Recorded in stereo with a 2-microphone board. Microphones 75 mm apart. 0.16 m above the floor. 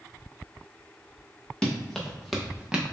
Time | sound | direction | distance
1.6 | running footsteps | 15° left (ahead or behind) | 1.5 m